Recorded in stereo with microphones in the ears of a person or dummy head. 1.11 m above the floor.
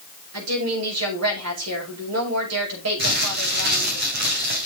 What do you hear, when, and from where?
0.3 s a woman speaking: 85° right, 7 m
3.0 s crumpling: 50° right (ahead or behind), 4 m